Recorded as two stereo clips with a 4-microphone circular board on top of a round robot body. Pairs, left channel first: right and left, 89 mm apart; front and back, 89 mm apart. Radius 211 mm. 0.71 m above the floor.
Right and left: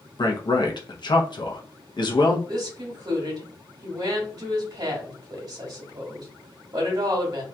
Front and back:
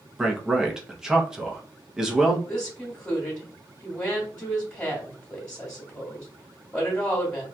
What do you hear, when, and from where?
0.2 s a man speaking: 95° right, 0.8 m
2.5 s a woman speaking: 65° left, 1.4 m